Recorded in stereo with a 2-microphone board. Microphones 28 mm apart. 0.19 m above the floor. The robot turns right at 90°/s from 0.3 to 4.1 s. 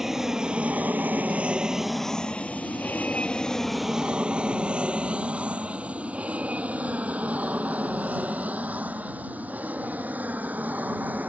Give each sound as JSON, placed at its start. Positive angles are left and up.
{"t": 0.0, "sound": "an aircraft", "side_deg": -15}